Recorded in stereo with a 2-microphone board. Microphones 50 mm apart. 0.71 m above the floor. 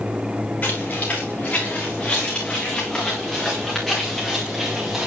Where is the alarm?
I don't hear an alarm.